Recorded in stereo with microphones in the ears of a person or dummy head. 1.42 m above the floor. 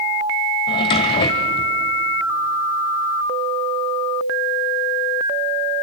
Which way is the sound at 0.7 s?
25° left (ahead or behind).